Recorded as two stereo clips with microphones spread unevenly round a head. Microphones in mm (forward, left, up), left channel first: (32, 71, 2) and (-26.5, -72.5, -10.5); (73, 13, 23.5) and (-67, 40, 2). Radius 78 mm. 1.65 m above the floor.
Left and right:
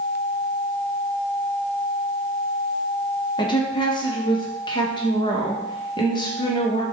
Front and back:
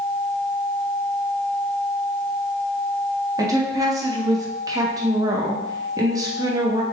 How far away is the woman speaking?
About 0.7 m.